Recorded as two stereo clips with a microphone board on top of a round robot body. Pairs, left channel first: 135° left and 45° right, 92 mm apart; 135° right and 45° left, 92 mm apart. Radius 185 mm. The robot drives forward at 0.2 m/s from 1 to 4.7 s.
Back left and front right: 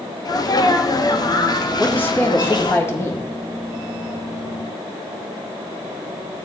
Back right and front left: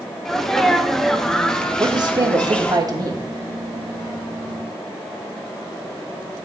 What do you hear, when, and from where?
0.2 s a sneeze: 145° left, 1.4 m; by 2.8 s 155° left, 1.6 m
1.8 s a man speaking: 70° left, 2 m; by 3.2 s 80° left, 1.9 m